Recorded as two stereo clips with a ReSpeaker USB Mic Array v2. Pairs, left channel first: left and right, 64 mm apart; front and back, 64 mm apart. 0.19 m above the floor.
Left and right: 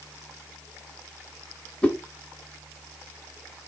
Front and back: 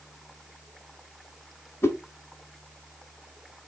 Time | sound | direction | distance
1.8 | a whoosh | 25° left | 0.7 m